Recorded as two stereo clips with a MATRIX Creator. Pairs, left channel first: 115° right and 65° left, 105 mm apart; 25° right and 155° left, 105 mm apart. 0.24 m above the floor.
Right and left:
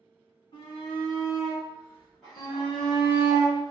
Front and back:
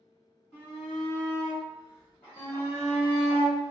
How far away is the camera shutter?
I don't hear a camera shutter.